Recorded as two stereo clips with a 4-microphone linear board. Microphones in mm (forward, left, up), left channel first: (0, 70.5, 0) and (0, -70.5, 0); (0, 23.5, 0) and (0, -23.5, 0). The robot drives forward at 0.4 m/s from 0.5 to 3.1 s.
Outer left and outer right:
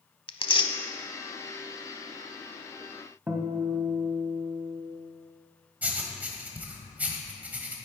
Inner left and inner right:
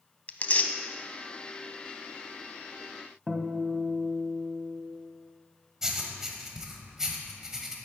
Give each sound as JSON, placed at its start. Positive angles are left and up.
{"t": 0.3, "sound": "tearing paper", "side_deg": 35, "distance_m": 0.6}
{"t": 3.3, "sound": "a guitar", "side_deg": -15, "distance_m": 1.1}
{"t": 5.8, "sound": "writing", "side_deg": -10, "distance_m": 1.2}